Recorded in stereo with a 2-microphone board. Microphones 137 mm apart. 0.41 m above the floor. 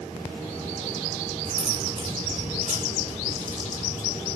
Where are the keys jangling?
50° right (ahead or behind), 3 m; by 4.3 s 80° right, 3.5 m.